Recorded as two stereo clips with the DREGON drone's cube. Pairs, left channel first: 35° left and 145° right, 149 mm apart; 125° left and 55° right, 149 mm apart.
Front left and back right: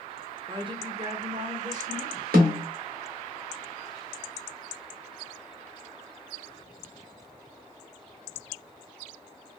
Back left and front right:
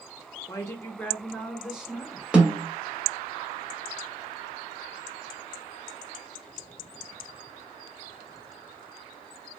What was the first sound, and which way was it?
A woman speaking, 175° left.